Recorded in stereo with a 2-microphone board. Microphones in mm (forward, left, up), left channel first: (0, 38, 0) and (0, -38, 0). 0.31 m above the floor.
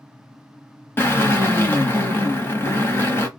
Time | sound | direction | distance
1.0 | a drill | 30° left (ahead or behind) | 1.4 m